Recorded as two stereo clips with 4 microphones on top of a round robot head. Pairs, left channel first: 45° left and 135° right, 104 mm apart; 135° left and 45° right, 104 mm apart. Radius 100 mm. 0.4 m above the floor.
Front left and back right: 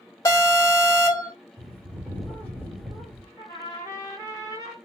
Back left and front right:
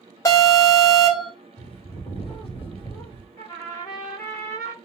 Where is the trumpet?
85° left, 1.8 m.